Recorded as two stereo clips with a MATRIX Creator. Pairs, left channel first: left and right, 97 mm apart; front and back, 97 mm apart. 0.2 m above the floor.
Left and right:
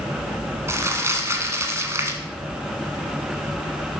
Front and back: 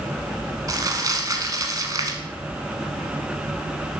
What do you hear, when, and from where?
0.7 s crumpling: 145° right, 1.1 m